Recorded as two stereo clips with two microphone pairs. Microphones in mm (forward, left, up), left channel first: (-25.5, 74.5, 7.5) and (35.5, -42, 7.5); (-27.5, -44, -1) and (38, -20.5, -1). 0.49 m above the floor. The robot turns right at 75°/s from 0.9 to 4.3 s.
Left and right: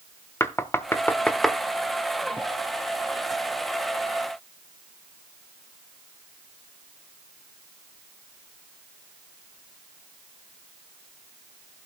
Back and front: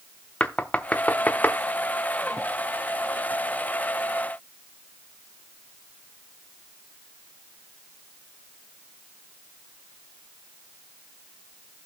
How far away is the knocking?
About 0.8 m.